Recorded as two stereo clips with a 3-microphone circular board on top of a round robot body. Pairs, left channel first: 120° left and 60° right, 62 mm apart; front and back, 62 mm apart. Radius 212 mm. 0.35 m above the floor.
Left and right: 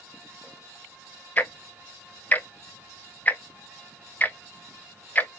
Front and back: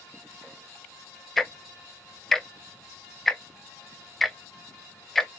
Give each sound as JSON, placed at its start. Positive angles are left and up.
{"t": 1.4, "sound": "ticking", "azimuth_deg": 85, "distance_m": 0.7}